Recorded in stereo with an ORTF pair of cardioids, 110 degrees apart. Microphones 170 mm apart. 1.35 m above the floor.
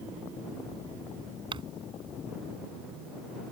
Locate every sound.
1.5 s crumpling: 30° right